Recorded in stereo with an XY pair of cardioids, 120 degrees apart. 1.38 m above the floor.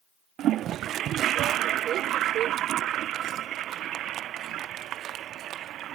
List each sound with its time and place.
0.4 s a toilet flushing: 65° right